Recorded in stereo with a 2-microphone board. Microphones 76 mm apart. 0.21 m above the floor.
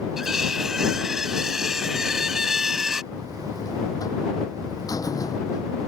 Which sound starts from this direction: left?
A buzzer, at 3.1 s.